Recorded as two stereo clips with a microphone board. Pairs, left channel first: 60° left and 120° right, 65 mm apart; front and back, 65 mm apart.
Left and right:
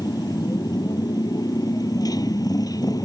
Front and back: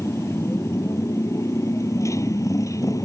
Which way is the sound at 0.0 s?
45° left.